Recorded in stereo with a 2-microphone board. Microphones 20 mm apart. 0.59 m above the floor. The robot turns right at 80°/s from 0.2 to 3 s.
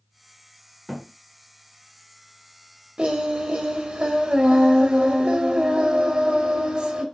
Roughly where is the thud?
Centre.